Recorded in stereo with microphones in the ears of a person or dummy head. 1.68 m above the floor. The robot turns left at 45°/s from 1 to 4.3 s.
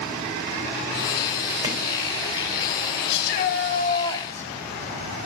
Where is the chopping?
25° right (ahead or behind), 3 m; by 1.8 s 20° right (ahead or behind), 3 m.